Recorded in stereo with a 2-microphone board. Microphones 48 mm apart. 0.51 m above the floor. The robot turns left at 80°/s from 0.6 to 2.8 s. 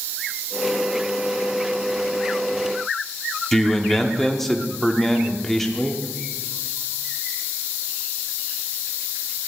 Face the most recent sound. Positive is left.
turn(degrees=5)  # may be behind; listen again after turning